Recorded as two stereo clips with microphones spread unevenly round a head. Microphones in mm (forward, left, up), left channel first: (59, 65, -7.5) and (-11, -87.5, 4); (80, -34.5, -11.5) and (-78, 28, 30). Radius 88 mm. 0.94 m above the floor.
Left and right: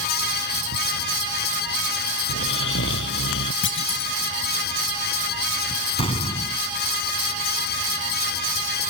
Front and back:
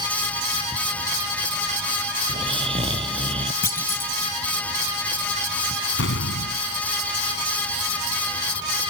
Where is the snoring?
100° left.